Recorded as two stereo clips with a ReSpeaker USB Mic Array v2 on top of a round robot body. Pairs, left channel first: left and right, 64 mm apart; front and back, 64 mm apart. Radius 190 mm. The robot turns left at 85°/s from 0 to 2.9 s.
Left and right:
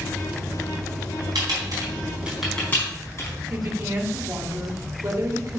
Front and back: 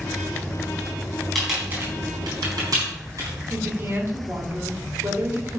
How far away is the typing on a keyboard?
About 4 m.